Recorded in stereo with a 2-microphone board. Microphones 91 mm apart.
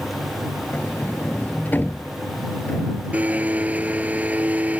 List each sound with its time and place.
0.7 s a sliding door: 20° left (ahead or behind)
3.1 s a blender: 15° right (ahead or behind)